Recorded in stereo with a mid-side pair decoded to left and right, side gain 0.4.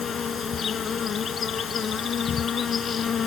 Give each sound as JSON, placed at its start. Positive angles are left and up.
{"t": 0.0, "sound": "an insect", "azimuth_deg": 55}